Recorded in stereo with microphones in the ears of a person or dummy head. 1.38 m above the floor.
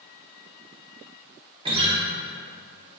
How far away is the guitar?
About 0.8 m.